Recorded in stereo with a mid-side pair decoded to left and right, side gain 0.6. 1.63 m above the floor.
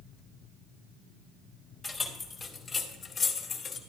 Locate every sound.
1.8 s keys jangling: 10° left, 2 m; by 3.8 s 40° left, 1.8 m